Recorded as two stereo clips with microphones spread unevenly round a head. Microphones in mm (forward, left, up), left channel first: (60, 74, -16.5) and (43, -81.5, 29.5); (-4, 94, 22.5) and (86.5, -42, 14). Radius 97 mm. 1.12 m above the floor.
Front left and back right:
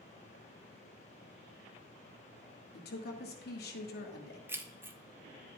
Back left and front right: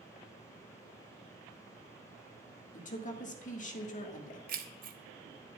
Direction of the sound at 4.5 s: 20° right.